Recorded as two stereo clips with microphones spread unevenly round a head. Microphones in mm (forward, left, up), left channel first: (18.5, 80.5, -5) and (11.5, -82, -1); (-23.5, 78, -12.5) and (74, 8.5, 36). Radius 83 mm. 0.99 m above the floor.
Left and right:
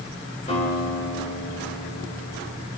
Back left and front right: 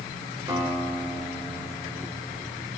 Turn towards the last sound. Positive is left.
turn(degrees=30)